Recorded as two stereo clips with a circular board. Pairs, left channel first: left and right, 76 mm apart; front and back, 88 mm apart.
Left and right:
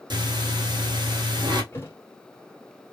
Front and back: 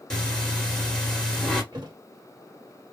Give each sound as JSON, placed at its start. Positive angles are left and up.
{"t": 0.1, "sound": "breathing", "azimuth_deg": -80, "distance_m": 1.3}
{"t": 1.7, "sound": "a thud", "azimuth_deg": 145, "distance_m": 1.5}